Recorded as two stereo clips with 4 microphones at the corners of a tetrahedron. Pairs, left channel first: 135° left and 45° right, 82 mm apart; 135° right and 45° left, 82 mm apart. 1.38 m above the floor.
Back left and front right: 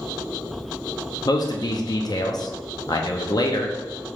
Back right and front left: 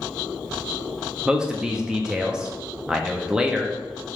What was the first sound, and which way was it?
A man speaking, 125° left.